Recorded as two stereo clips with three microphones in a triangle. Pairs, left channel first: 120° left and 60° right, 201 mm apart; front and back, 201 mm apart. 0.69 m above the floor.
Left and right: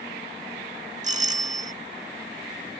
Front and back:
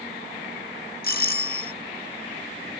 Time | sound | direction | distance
1.0 | a doorbell | 20° right | ?